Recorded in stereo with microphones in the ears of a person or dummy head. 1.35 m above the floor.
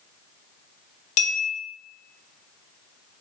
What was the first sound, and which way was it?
A bell, 45° left (ahead or behind).